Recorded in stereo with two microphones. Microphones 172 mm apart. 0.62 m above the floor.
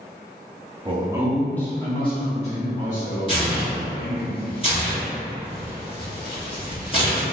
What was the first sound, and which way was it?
A man speaking, 30° right (ahead or behind).